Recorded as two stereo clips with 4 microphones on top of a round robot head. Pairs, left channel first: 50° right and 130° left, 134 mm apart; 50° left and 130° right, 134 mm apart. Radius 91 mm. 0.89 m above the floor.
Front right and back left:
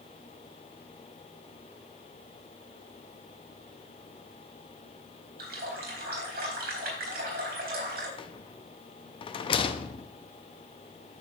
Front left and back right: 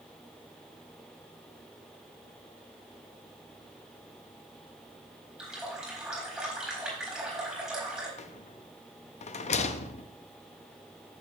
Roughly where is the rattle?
Ahead.